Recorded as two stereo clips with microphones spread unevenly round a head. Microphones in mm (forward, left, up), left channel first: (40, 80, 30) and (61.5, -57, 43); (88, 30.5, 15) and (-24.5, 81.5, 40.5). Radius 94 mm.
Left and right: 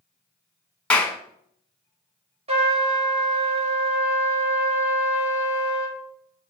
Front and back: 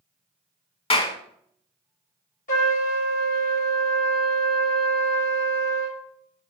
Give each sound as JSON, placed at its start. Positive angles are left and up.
{"t": 0.9, "sound": "a clap", "azimuth_deg": 15, "distance_m": 1.0}
{"t": 2.5, "sound": "a trumpet", "azimuth_deg": -35, "distance_m": 1.6}